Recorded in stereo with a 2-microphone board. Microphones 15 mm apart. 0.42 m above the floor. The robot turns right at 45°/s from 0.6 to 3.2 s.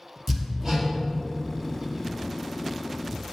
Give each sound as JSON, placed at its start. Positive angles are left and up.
{"t": 0.3, "sound": "hammering", "side_deg": -10, "distance_m": 2.5}